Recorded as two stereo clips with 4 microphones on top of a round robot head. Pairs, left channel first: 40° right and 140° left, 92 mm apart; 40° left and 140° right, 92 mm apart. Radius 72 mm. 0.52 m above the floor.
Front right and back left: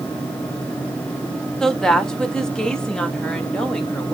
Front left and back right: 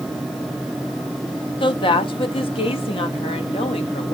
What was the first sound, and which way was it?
A woman speaking, 40° left.